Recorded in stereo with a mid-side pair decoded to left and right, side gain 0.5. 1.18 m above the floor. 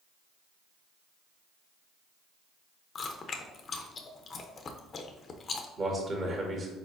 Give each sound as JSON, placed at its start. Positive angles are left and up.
{"t": 3.0, "sound": "chewing", "azimuth_deg": 40, "distance_m": 0.6}
{"t": 5.8, "sound": "a man speaking", "azimuth_deg": -40, "distance_m": 1.5}